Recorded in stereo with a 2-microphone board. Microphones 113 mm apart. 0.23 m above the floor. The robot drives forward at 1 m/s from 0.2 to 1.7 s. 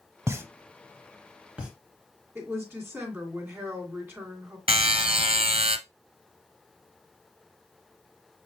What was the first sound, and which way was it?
A pop, 25° right (ahead or behind).